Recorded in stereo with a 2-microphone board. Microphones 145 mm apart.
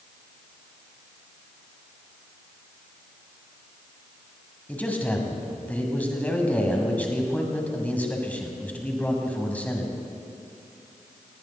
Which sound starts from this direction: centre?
A man speaking, at 4.7 s.